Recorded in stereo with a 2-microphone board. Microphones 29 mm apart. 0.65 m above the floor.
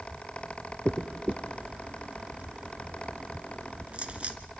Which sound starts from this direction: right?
A dropped coin, at 0.8 s.